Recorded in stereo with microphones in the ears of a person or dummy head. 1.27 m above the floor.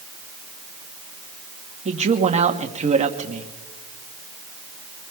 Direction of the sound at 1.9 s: 35° right (ahead or behind).